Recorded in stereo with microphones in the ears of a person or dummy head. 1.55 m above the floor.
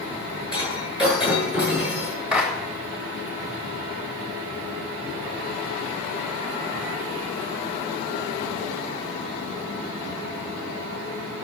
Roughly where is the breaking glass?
Centre.